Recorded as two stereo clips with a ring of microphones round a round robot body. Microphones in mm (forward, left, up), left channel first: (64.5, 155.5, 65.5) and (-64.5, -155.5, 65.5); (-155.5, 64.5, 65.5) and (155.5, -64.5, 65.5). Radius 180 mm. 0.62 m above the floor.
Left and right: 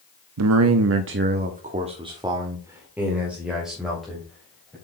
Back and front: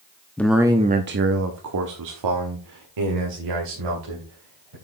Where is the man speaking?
120° right, 0.8 m; by 4.8 s 20° right, 3 m.